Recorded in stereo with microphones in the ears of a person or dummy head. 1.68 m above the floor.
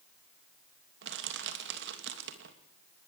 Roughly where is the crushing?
Right.